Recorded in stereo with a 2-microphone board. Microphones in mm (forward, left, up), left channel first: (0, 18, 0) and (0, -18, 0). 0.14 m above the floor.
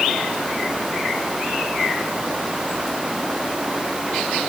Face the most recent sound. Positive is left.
No sound to turn to.